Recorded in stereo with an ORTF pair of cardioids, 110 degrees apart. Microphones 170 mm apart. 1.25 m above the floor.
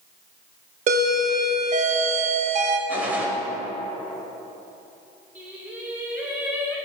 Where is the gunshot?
10° right, 2.5 m.